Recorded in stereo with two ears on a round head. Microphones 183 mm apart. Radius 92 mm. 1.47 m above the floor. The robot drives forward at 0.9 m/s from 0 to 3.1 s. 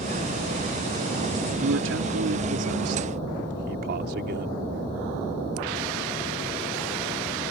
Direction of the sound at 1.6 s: 70° right (ahead or behind).